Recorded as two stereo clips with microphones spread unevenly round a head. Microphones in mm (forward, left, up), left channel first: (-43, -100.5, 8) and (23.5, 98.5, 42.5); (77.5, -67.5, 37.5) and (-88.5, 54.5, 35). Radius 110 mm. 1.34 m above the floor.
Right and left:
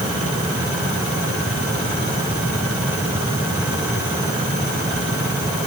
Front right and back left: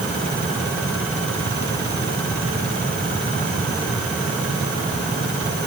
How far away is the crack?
I don't hear a crack.